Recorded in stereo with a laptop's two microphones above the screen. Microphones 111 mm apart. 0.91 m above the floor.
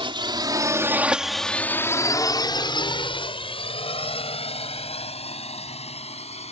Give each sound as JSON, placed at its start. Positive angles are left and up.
{"t": 0.0, "sound": "a drone", "side_deg": -50}